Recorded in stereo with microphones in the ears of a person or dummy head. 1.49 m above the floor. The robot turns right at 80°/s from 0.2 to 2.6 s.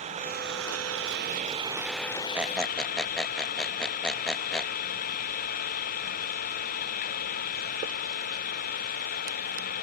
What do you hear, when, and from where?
0.0 s an engine running: 140° right; by 9.8 s 50° left
2.4 s a squeak: 5° right (ahead or behind); by 4.7 s 5° left (ahead or behind)